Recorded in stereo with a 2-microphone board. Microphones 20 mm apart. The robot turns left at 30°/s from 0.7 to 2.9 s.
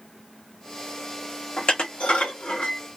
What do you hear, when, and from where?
1.6 s dishes clattering: 40° left (ahead or behind), 1.0 m; by 2.8 s 65° left (ahead or behind), 1.0 m